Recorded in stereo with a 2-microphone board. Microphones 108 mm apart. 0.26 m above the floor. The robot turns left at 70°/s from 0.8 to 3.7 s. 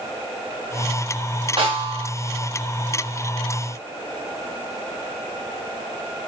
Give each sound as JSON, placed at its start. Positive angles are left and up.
{"t": 1.6, "sound": "a snare drum", "azimuth_deg": -70, "distance_m": 1.4}